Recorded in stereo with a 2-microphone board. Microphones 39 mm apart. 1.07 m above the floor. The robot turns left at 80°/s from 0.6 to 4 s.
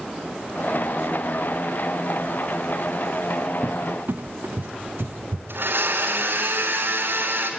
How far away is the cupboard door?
About 0.6 m.